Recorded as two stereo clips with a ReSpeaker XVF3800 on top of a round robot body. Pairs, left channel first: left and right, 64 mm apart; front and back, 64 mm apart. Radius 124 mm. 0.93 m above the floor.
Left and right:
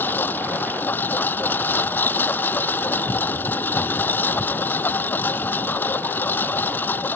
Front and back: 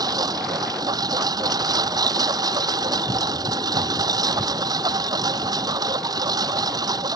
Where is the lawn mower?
155° left.